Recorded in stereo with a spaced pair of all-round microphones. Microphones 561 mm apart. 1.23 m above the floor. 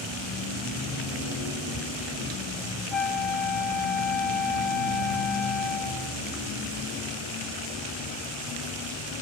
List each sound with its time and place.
2.9 s a flute: 50° left (ahead or behind)